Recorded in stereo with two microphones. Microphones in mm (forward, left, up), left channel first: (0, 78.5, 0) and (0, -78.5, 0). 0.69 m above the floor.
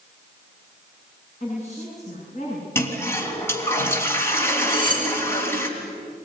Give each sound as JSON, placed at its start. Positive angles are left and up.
{"t": 1.4, "sound": "a woman speaking", "side_deg": 50, "distance_m": 9.5}
{"t": 2.8, "sound": "a toilet flushing", "side_deg": 15, "distance_m": 3.5}
{"t": 4.7, "sound": "cutlery clinking", "side_deg": 30, "distance_m": 7.0}